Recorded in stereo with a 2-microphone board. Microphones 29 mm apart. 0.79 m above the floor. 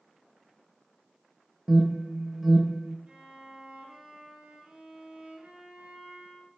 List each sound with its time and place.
1.7 s an alarm: 15° right (ahead or behind), 0.9 m
3.1 s a violin: 40° right (ahead or behind), 1.9 m